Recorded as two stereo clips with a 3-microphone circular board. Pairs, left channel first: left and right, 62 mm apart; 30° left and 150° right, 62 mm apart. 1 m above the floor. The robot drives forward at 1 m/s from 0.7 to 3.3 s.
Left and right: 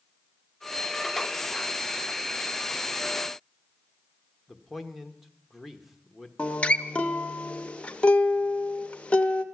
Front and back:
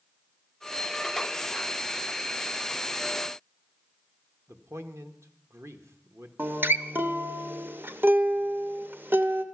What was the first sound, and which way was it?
A man speaking, straight behind.